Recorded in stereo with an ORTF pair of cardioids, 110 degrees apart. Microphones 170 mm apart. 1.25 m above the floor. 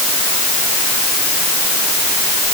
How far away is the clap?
I don't hear a clap.